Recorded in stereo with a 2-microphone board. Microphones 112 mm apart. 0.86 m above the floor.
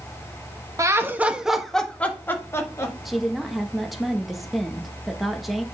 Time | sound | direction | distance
0.8 | laughter | 30° right (ahead or behind) | 1.2 m
3.0 | a woman speaking | centre (ahead or behind) | 1.1 m